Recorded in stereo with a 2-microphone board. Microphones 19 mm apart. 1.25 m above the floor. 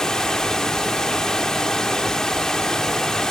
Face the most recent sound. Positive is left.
turn(degrees=35)  # may be behind; listen again after turning